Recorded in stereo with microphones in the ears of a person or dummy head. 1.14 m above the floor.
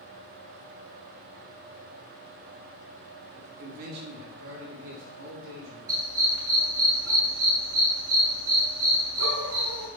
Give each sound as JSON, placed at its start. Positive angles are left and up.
{"t": 3.3, "sound": "a man speaking", "side_deg": -40, "distance_m": 2.5}
{"t": 5.9, "sound": "a dog barking", "side_deg": -70, "distance_m": 3.0}